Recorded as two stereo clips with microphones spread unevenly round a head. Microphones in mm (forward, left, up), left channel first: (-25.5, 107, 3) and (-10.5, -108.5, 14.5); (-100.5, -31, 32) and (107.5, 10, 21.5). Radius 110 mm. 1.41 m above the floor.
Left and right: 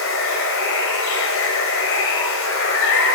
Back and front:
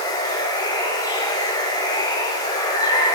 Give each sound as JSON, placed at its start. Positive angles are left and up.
{"t": 0.0, "sound": "running water", "azimuth_deg": 120, "distance_m": 2.5}